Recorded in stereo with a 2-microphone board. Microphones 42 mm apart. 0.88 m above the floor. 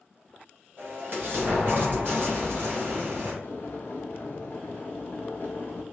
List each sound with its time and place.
0.8 s an explosion: 55° right (ahead or behind), 1.5 m
3.4 s boiling: 55° left (ahead or behind), 0.9 m